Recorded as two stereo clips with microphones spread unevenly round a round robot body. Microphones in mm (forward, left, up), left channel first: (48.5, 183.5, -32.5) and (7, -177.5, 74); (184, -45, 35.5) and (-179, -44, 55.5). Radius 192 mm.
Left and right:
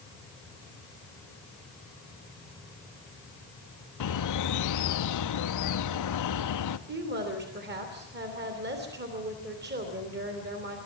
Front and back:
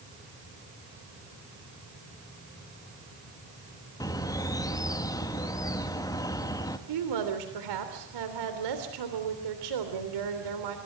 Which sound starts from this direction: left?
A bird, at 4.0 s.